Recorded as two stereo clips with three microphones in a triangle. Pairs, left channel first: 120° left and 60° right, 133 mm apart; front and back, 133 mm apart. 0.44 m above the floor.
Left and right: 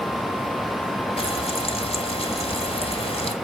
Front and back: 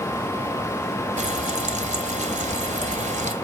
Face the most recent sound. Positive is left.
turn(degrees=160)